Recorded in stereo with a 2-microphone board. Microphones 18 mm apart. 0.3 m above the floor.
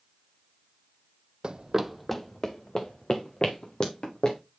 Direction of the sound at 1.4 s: 50° right (ahead or behind).